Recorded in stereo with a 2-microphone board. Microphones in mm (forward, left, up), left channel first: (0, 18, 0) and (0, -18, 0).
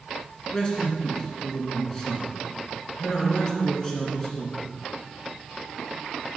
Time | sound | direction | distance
0.5 | a man speaking | 20° left (ahead or behind) | 2 m